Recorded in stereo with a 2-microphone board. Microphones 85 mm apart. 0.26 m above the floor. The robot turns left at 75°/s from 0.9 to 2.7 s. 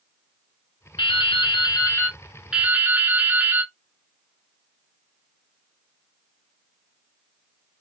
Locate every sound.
1.0 s dripping: 105° left, 1.0 m; by 3.7 s 25° right, 1.0 m